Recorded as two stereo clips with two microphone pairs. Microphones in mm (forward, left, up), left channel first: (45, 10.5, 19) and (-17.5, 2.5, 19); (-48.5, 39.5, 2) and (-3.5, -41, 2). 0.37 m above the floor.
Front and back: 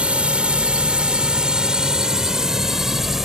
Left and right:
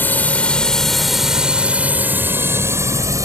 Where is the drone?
150° left; by 3.2 s 90° right.